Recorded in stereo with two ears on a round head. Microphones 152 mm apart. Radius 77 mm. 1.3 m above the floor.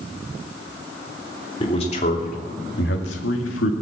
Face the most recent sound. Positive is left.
turn(degrees=85)